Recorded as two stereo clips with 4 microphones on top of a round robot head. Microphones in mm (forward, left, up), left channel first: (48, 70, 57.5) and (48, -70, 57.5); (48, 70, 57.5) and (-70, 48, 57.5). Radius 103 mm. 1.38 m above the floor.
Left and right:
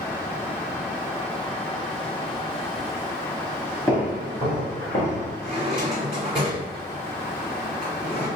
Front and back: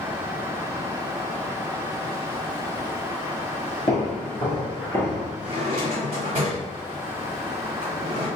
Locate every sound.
3.9 s footsteps: 35° left, 1.5 m; by 5.3 s 90° left, 2.0 m
5.4 s a drawer: 170° right, 1.2 m